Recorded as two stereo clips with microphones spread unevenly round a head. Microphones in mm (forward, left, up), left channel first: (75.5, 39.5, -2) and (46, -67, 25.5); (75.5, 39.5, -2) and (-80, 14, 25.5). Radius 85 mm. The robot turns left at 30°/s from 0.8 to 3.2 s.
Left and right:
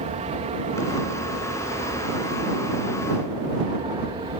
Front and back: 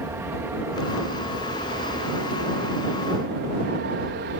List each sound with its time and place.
0.0 s an aircraft: 95° right; by 4.4 s 165° right